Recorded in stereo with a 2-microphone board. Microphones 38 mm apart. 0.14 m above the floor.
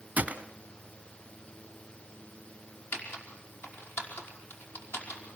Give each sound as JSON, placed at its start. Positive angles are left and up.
{"t": 0.2, "sound": "a gunshot", "side_deg": -40, "distance_m": 1.5}
{"t": 2.9, "sound": "typing on a keyboard", "side_deg": 70, "distance_m": 5.0}